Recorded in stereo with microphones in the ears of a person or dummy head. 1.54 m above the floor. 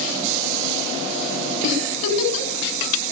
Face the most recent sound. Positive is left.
turn(degrees=85)